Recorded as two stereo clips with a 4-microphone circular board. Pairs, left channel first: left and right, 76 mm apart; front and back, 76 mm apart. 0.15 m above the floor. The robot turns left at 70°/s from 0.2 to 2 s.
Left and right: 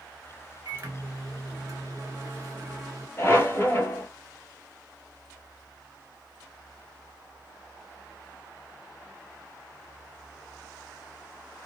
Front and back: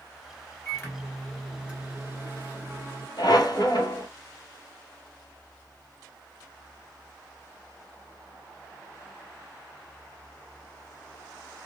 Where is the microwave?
35° right, 1.5 m; by 3.1 s 130° right, 1.5 m.